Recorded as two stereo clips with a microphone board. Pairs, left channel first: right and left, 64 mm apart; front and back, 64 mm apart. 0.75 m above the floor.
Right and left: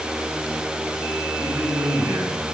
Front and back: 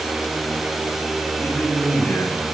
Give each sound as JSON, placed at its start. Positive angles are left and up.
{"t": 1.4, "sound": "a man speaking", "azimuth_deg": 65, "distance_m": 6.0}